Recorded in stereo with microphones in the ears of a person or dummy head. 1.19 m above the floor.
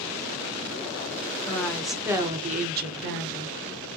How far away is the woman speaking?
About 1.1 m.